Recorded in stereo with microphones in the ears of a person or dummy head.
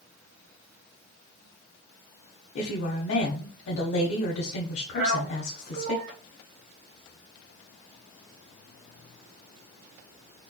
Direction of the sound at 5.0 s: 70° right (ahead or behind).